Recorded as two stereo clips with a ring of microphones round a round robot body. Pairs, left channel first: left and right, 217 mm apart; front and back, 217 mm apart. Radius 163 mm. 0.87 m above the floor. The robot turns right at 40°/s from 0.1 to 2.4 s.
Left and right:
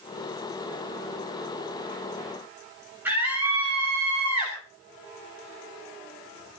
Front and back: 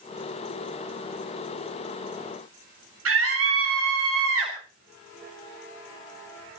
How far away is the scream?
About 2.5 m.